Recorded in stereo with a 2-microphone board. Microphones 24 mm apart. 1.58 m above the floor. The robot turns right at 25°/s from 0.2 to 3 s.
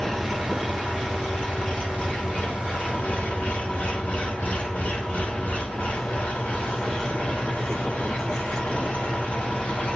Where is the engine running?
20° left, 6.5 m; by 10.0 s 90° left, 6.5 m.